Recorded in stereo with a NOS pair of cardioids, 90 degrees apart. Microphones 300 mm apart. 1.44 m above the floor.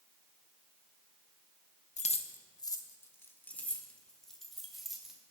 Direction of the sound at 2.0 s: 25° left.